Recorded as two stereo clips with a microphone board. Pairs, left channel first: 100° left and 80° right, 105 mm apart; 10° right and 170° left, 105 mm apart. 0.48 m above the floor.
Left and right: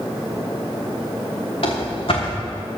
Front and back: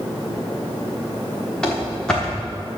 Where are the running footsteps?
70° left, 3.5 m.